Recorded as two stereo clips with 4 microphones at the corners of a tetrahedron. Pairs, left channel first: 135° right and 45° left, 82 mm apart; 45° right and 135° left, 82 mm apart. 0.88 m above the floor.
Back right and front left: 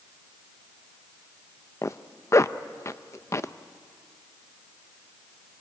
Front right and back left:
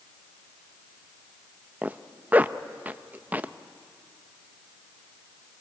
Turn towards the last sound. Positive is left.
turn(degrees=-165)